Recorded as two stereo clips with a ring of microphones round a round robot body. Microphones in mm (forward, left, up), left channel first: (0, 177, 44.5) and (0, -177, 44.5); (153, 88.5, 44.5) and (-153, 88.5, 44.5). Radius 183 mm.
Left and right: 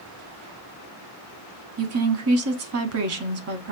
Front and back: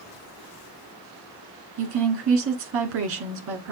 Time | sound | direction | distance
1.8 | a woman speaking | 135° right | 1.0 m